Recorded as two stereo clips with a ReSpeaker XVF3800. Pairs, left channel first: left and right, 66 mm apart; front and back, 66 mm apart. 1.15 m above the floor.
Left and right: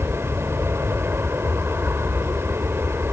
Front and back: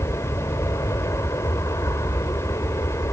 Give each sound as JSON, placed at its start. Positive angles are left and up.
{"t": 0.0, "sound": "an aircraft", "azimuth_deg": -35}